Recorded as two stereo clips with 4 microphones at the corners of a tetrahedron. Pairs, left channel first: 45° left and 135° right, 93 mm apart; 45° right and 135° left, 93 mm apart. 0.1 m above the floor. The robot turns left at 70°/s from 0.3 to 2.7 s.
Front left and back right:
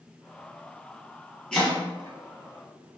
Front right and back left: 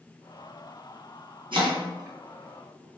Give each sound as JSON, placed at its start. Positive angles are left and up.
{"t": 1.5, "sound": "chopping", "azimuth_deg": 125, "distance_m": 1.1}